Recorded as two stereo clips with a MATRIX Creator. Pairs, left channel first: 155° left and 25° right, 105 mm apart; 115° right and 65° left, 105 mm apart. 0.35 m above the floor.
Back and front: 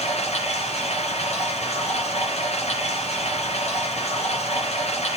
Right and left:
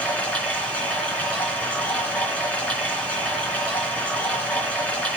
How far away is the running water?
About 3.5 m.